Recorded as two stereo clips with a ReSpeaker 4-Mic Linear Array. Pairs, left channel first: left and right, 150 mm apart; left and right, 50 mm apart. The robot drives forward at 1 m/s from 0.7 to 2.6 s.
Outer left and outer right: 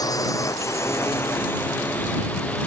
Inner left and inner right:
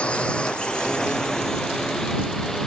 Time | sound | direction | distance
0.0 | a drone | 25° left (ahead or behind) | ?